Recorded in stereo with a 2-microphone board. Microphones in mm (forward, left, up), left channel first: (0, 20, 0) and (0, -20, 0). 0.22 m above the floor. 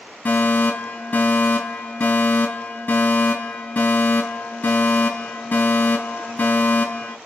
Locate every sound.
0.2 s a fire alarm: 40° left (ahead or behind), 5 m